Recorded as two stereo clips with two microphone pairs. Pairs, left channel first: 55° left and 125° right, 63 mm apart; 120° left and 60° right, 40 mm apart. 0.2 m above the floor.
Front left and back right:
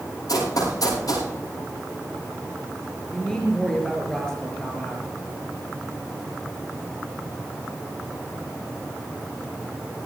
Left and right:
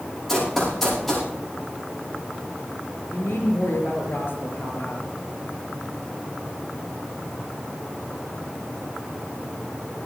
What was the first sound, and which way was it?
Running footsteps, 35° left.